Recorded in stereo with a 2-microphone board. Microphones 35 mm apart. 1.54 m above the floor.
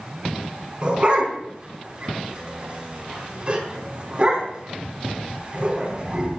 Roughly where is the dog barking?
Right.